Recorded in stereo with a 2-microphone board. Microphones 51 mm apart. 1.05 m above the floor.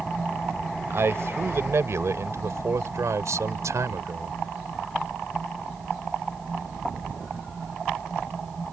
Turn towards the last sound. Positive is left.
turn(degrees=-80)